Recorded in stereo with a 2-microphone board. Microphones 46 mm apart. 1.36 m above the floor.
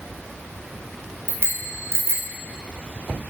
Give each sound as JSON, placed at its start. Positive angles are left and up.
{"t": 1.3, "sound": "a bicycle bell", "side_deg": -70, "distance_m": 4.0}